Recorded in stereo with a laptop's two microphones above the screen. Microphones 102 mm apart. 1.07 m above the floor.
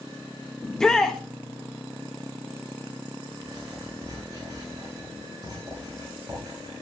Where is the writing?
35° right (ahead or behind), 9 m.